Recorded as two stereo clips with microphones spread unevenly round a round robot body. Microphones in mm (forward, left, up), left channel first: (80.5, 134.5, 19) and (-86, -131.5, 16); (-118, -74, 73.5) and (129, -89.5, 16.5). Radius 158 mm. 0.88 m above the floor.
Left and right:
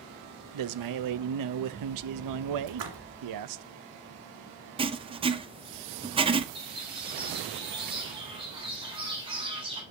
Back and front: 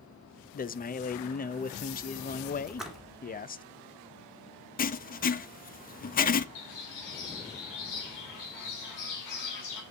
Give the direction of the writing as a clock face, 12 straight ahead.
5 o'clock.